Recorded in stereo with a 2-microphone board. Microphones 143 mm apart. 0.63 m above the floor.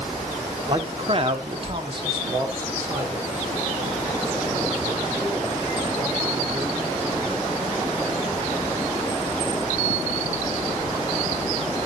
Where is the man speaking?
35° right (ahead or behind), 2.0 m; by 7.3 s centre (ahead or behind), 8.5 m.